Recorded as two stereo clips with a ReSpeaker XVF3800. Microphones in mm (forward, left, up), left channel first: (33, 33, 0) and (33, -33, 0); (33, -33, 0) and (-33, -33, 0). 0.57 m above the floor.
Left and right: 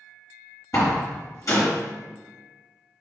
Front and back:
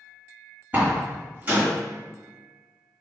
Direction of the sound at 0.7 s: 120° left.